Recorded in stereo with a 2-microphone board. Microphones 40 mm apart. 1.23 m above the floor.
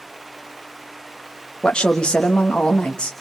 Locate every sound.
1.6 s a woman speaking: 20° left (ahead or behind), 1.6 m